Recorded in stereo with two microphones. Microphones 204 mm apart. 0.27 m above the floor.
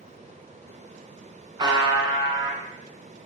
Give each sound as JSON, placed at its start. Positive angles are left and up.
{"t": 1.6, "sound": "a buzzer", "side_deg": -20, "distance_m": 0.6}